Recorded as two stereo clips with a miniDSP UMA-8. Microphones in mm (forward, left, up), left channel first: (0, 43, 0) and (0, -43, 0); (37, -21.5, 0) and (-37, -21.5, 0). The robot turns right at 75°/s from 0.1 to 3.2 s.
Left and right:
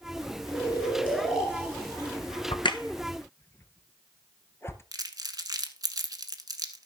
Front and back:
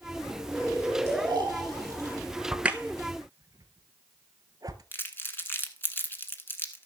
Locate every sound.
0.5 s snoring: 120° left, 4.5 m; by 2.2 s 120° right, 4.5 m
2.5 s a crack: 95° left, 0.9 m; by 4.8 s 150° left, 0.9 m
4.9 s crumpling: 55° right, 1.1 m